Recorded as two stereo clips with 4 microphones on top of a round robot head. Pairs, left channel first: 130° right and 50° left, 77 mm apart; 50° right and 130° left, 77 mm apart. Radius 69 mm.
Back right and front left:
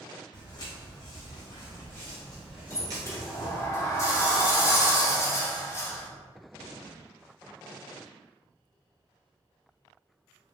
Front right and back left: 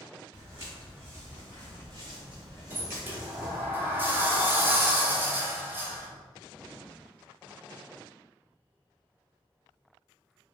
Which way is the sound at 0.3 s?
165° right.